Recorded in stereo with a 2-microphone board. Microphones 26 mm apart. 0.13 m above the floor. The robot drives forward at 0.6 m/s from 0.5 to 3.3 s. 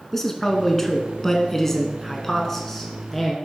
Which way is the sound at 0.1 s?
15° left (ahead or behind).